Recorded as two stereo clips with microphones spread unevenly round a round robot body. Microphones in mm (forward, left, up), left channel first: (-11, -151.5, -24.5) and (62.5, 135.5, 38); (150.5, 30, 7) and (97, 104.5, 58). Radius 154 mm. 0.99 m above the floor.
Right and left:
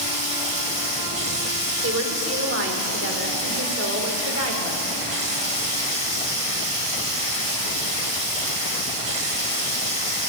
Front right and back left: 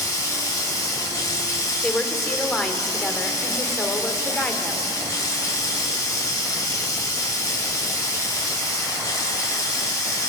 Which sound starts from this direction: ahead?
Running water, at 0.0 s.